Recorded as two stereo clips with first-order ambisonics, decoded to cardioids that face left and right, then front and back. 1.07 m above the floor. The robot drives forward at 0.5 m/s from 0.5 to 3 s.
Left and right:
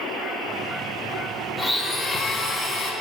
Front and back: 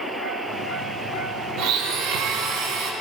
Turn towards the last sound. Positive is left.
turn(degrees=180)